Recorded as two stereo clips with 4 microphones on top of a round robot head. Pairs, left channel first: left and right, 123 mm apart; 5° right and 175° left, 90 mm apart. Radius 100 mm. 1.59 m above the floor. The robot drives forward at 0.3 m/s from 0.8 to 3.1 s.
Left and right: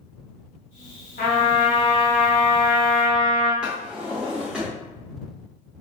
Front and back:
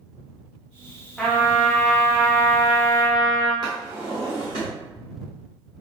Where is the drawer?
170° right, 0.9 m.